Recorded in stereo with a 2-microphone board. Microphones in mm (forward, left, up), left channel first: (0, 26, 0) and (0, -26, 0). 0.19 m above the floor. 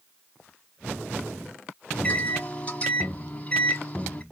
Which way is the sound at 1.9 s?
25° left (ahead or behind).